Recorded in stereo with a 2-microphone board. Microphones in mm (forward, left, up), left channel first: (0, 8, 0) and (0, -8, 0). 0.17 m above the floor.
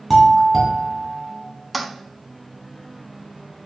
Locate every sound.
0.1 s a doorbell: 5° left (ahead or behind), 2.5 m
1.7 s a toilet flushing: centre (ahead or behind), 0.8 m